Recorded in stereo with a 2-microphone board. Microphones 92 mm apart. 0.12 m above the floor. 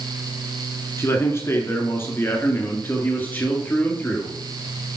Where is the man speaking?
30° left (ahead or behind), 1.9 m; by 4.4 s 15° left (ahead or behind), 2.5 m.